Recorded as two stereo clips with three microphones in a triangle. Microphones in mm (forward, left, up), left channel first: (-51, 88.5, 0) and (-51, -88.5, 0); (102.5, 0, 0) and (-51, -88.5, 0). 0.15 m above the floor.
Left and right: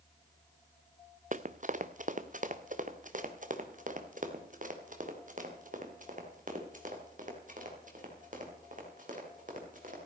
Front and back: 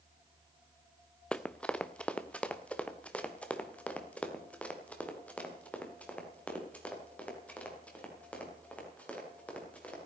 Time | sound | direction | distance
1.3 | running footsteps | 55° right | 0.7 m